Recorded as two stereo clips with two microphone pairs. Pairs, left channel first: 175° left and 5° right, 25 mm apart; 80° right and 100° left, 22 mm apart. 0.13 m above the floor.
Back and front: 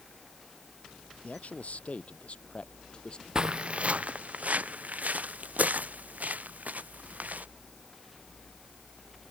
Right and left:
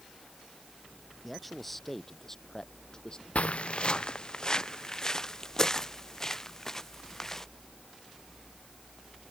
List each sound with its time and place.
1.2 s a man speaking: 170° right; by 3.2 s 130° right
3.4 s footsteps: 60° right; by 7.5 s 5° right